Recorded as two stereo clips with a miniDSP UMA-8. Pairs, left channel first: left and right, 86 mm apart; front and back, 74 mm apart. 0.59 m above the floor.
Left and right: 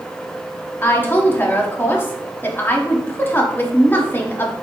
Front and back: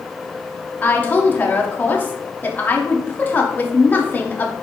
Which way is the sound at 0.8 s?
45° left.